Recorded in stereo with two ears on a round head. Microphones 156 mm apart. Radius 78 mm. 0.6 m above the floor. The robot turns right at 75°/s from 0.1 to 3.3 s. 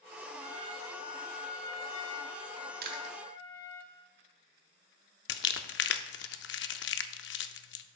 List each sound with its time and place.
0.4 s a trumpet: 65° right, 2.5 m; by 3.8 s 155° left, 2.5 m
2.8 s chewing: 60° right (ahead or behind), 1.1 m; by 3.1 s 35° right (ahead or behind), 1.1 m
5.3 s crumpling: 70° left (ahead or behind), 0.6 m